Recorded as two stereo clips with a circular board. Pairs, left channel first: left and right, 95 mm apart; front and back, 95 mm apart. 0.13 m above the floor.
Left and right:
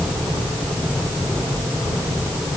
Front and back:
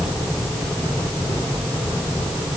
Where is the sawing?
I don't hear sawing.